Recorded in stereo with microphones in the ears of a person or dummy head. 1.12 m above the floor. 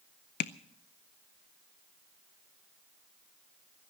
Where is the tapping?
50° left (ahead or behind), 0.6 m.